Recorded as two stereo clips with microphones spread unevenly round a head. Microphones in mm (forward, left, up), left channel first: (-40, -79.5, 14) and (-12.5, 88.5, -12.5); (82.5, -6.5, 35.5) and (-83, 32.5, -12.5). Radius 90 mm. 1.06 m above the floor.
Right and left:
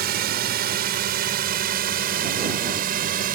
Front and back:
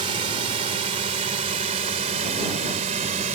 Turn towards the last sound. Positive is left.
turn(degrees=115)